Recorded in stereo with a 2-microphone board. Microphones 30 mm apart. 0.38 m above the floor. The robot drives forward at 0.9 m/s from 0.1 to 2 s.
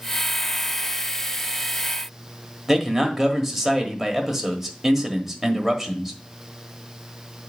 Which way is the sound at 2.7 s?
5° right (ahead or behind).